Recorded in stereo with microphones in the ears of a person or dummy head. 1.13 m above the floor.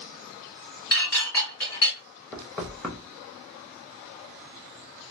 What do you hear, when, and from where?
0.9 s dishes clattering: 20° left (ahead or behind), 1.5 m
2.3 s knocking: centre (ahead or behind), 0.7 m